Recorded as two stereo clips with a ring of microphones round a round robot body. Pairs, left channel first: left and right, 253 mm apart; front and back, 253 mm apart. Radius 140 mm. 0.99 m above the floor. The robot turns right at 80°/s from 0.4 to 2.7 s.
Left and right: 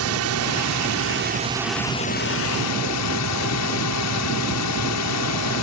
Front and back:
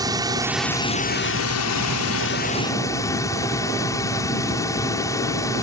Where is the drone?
105° right; by 5.6 s 80° left.